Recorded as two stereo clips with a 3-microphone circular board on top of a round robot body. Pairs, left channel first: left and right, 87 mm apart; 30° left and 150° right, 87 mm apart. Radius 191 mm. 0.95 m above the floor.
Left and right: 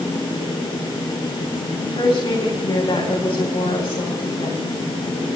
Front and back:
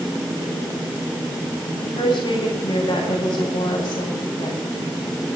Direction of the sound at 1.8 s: 70° left.